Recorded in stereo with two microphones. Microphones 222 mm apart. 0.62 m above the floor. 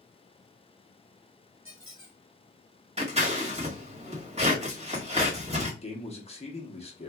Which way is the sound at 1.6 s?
70° right (ahead or behind).